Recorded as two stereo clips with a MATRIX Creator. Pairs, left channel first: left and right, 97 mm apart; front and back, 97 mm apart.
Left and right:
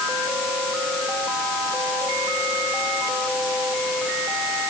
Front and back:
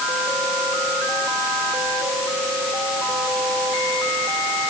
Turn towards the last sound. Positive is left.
No sound to turn to.